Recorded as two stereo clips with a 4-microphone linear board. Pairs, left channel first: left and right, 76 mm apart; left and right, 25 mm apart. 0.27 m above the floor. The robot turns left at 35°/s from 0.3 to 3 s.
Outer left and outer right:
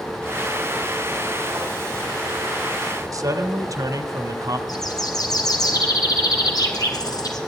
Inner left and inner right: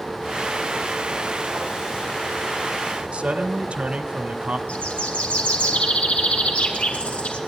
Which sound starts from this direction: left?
A bird, at 4.7 s.